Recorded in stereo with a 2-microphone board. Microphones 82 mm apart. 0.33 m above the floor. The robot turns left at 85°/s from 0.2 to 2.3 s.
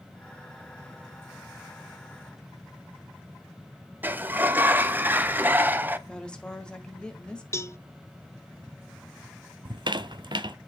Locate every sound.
4.0 s a sliding door: 25° right (ahead or behind), 0.7 m
6.1 s a woman speaking: 10° left (ahead or behind), 1.6 m
7.5 s a cowbell: 35° left (ahead or behind), 0.6 m
9.7 s a squeak: 75° right (ahead or behind), 0.7 m